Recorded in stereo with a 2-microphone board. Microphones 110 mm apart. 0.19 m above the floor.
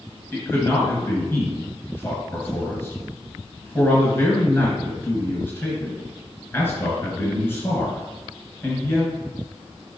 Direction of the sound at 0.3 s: 20° left (ahead or behind).